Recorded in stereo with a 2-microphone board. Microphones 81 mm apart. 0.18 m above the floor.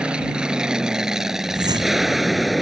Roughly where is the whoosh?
Right.